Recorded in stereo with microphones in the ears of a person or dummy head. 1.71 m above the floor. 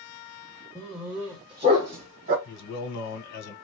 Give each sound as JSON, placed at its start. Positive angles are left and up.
{"t": 0.8, "sound": "a dog barking", "side_deg": 10, "distance_m": 1.2}
{"t": 2.5, "sound": "a man speaking", "side_deg": 60, "distance_m": 1.4}